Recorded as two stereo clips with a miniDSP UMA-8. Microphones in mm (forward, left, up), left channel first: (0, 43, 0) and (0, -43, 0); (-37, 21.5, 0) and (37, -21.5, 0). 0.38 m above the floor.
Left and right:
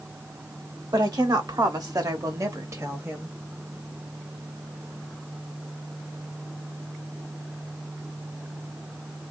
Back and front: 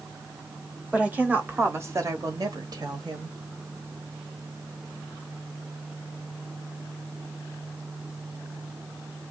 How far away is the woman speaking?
About 1.3 m.